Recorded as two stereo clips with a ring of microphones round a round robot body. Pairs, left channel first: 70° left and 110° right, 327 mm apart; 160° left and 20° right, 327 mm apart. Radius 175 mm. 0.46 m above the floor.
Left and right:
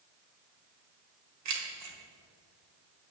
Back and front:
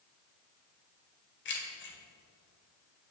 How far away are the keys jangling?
About 1.3 m.